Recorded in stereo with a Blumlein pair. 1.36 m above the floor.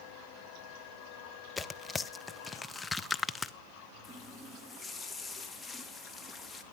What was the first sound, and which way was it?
Tearing paper, 10° left.